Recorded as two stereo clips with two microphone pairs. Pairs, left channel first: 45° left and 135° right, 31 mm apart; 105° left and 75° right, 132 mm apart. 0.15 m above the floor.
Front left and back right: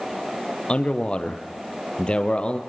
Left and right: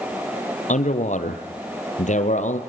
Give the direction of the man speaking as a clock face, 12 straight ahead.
9 o'clock.